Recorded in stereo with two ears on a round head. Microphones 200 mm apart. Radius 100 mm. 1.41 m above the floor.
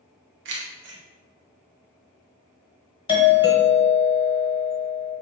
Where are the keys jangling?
55° right (ahead or behind), 0.8 m.